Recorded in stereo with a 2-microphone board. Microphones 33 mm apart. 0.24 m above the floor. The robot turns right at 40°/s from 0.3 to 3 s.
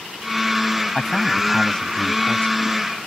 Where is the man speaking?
5° left; by 2.8 s 80° left.